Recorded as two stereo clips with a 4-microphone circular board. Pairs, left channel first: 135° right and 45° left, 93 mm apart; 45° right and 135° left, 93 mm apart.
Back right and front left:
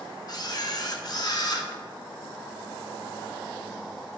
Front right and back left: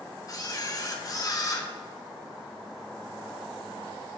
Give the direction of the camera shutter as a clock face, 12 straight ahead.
3 o'clock.